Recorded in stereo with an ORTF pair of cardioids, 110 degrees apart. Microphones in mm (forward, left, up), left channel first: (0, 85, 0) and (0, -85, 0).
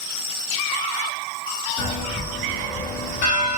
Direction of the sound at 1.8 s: 55° left.